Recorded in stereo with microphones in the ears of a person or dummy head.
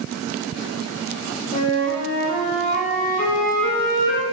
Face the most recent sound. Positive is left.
turn(degrees=45)  # may be behind; listen again after turning